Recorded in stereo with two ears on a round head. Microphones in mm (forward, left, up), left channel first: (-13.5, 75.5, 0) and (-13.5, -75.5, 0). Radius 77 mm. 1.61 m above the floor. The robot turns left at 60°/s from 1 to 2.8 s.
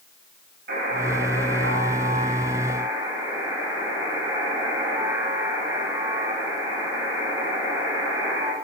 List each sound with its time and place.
0.7 s a buzzer: 55° right, 5 m; by 8.5 s 165° right, 5 m